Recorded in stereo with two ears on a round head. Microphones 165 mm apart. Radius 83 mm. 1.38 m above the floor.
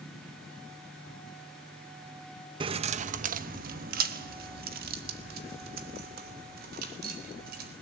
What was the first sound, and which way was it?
Keys jangling, 25° right (ahead or behind).